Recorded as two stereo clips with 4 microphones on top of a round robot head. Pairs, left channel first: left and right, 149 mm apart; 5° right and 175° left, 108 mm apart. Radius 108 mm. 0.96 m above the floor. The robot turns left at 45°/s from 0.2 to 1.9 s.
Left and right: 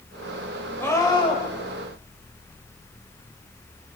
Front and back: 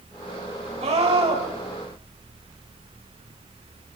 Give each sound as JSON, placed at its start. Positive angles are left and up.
{"t": 0.8, "sound": "a scream", "azimuth_deg": 165, "distance_m": 6.0}